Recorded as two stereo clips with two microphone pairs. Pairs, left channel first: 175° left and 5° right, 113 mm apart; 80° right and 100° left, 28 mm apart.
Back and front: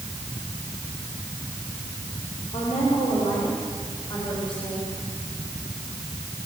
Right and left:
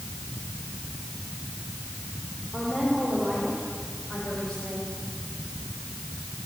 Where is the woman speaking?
165° right, 6.5 m; by 4.9 s 140° right, 8 m.